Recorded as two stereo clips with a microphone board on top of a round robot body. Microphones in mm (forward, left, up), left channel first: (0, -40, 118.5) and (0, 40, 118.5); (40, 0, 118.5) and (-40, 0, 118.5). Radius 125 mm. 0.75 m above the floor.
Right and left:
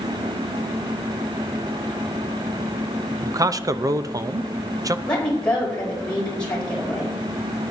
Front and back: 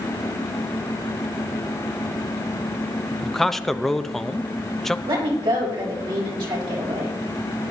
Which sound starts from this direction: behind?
A woman speaking, at 5.1 s.